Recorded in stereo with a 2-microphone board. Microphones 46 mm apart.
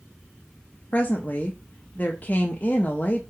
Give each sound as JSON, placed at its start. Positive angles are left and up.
{"t": 0.9, "sound": "a woman speaking", "side_deg": 35, "distance_m": 0.6}